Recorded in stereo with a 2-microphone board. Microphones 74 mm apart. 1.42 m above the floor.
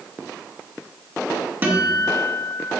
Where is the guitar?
25° right (ahead or behind), 1.9 m.